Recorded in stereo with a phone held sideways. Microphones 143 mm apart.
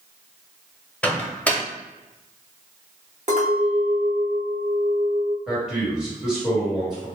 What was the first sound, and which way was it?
A microwave, 10° left (ahead or behind).